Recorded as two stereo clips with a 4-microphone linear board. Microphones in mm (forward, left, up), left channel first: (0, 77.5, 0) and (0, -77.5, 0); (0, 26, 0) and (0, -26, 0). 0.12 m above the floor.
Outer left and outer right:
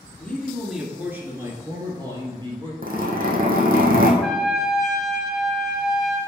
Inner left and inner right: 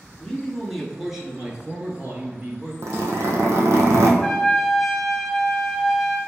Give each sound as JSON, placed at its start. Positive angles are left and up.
{"t": 0.2, "sound": "a man speaking", "side_deg": 10, "distance_m": 1.2}
{"t": 2.8, "sound": "a zipper", "side_deg": -70, "distance_m": 1.4}
{"t": 4.2, "sound": "a trumpet", "side_deg": 0, "distance_m": 1.2}